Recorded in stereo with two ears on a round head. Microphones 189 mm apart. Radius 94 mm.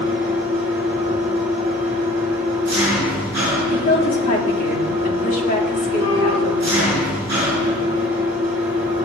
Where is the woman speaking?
35° left (ahead or behind), 2 m.